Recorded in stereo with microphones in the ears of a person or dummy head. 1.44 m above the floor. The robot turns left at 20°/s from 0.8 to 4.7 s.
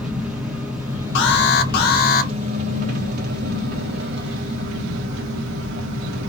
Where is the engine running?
5° right, 0.8 m; by 6.3 s 85° right, 0.8 m.